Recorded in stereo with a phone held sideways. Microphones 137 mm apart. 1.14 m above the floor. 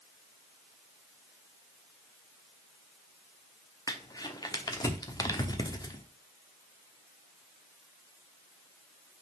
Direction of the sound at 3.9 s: 30° left (ahead or behind).